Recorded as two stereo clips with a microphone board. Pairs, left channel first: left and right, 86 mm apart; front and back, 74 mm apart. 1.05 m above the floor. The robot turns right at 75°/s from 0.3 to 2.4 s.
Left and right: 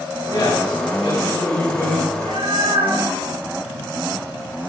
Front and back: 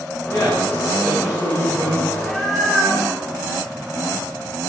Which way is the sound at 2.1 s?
110° right.